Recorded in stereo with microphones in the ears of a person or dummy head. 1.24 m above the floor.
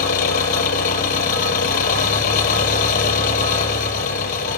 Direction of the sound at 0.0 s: 50° left (ahead or behind).